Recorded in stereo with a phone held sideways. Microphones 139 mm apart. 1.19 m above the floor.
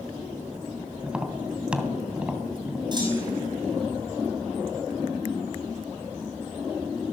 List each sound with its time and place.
1.0 s tapping: 5° right (ahead or behind), 2.5 m
2.9 s a clunk: 35° right (ahead or behind), 6 m